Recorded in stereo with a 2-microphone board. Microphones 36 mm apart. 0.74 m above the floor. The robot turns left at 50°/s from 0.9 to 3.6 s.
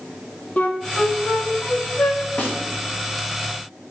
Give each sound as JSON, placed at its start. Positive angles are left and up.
{"t": 0.6, "sound": "a flute", "side_deg": 40, "distance_m": 0.9}
{"t": 2.4, "sound": "a snare drum", "side_deg": 60, "distance_m": 2.0}